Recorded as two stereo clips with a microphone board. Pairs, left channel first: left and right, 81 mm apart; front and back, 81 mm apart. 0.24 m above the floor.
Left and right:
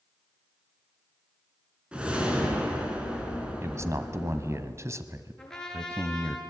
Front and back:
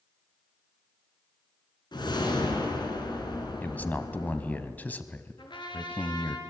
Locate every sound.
1.9 s a whoosh: 15° right, 3.5 m
3.6 s a man speaking: 60° right, 1.3 m
5.4 s a trumpet: 10° left, 4 m